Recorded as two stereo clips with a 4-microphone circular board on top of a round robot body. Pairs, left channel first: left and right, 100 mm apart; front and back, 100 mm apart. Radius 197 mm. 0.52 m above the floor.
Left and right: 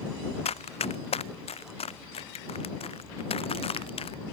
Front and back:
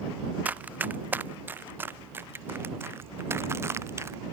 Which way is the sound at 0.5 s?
105° left.